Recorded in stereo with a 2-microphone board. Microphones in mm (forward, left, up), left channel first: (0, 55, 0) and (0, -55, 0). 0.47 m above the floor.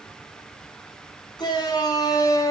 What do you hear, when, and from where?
1.4 s a shout: 40° left (ahead or behind), 5 m; by 2.5 s 30° left (ahead or behind), 4 m